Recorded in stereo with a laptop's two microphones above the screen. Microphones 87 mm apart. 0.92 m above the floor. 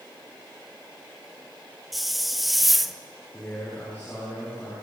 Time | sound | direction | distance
1.9 | a hiss | centre (ahead or behind) | 0.8 m
3.3 | a man speaking | 20° left (ahead or behind) | 10 m